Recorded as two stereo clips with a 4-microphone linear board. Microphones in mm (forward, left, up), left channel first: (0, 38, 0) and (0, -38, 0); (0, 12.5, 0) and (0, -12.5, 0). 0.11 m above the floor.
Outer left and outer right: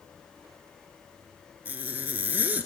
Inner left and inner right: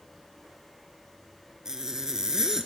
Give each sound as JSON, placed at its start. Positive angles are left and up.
{"t": 1.6, "sound": "a zipper", "side_deg": -20, "distance_m": 1.3}